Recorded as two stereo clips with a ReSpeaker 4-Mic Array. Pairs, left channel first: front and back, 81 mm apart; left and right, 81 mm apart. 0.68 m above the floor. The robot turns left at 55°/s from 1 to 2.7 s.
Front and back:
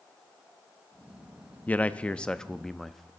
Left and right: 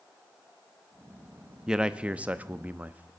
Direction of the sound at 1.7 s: 25° right.